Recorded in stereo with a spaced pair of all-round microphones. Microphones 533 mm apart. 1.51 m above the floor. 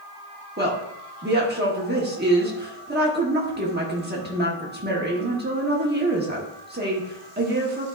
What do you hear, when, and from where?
0.6 s a woman speaking: 20° right (ahead or behind), 1.2 m